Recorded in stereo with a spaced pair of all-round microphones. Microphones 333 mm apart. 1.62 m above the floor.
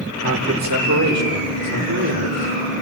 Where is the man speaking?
55° right (ahead or behind), 1.7 m; by 2.7 s 50° right (ahead or behind), 5.5 m.